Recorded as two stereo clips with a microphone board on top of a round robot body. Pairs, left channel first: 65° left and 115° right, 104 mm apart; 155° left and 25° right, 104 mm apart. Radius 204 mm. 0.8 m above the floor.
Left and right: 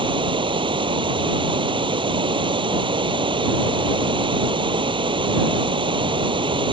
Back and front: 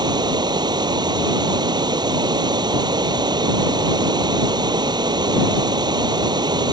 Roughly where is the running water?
Right.